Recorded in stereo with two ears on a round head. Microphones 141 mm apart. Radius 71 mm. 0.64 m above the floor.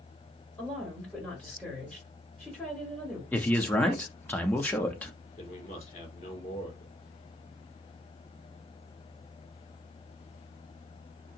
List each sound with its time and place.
0.6 s a woman speaking: 5° left (ahead or behind), 1.8 m
3.3 s a man speaking: 10° left (ahead or behind), 0.5 m
5.4 s a man speaking: 45° left (ahead or behind), 1.7 m